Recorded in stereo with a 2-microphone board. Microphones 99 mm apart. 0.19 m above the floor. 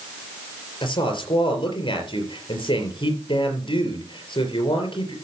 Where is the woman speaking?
55° left (ahead or behind), 4 m.